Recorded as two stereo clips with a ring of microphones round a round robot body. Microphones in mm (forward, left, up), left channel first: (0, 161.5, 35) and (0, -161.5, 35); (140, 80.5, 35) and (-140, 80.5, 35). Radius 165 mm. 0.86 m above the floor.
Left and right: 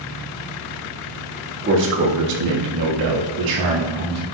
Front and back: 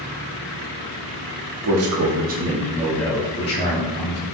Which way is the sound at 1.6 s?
150° right.